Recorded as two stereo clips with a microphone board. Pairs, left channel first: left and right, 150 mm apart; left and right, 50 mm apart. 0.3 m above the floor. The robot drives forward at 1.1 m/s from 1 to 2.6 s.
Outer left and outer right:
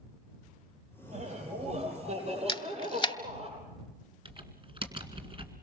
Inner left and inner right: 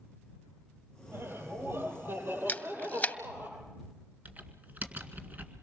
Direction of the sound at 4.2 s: 35° right (ahead or behind).